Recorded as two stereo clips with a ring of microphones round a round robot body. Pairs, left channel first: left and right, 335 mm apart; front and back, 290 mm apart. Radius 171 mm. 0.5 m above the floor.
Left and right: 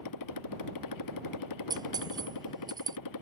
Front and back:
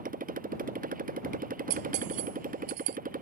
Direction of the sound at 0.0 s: 120° left.